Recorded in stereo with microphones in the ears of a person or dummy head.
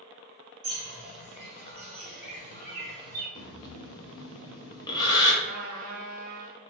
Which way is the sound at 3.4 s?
20° left (ahead or behind).